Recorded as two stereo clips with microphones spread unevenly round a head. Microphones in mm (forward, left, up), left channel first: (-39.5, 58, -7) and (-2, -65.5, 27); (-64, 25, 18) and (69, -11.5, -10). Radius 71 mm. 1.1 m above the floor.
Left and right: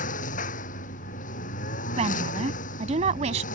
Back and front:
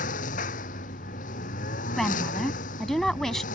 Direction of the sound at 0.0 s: 130° left.